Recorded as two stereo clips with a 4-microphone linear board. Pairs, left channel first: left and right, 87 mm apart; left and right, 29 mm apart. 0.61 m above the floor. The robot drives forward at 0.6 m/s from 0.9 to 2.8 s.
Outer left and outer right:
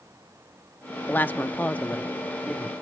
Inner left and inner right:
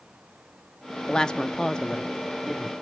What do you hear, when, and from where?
1.1 s a woman speaking: 20° left (ahead or behind), 0.6 m; by 2.7 s 10° left (ahead or behind), 1.0 m